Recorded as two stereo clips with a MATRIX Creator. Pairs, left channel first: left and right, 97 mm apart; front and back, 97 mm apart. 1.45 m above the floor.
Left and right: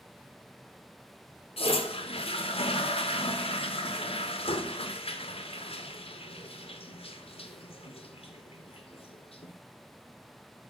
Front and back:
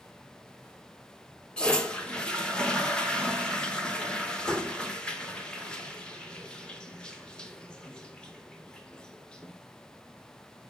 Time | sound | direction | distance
1.6 | a toilet flushing | 80° left | 0.8 m